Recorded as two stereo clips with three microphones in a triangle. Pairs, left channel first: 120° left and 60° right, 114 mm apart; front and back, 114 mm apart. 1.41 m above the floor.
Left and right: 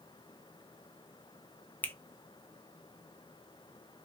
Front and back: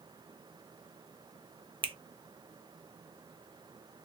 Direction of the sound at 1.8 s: 170° right.